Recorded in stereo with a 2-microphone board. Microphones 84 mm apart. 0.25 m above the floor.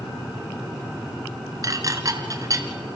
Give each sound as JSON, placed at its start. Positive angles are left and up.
{"t": 1.6, "sound": "dishes clattering", "side_deg": -40, "distance_m": 2.0}